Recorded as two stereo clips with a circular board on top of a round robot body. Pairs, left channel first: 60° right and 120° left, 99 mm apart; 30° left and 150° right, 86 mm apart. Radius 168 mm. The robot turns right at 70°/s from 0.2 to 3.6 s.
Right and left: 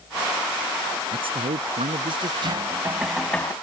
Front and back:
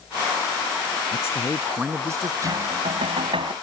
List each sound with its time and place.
1.1 s a man speaking: 85° left; by 2.3 s 165° left
2.4 s knocking: 155° left; by 3.5 s 125° right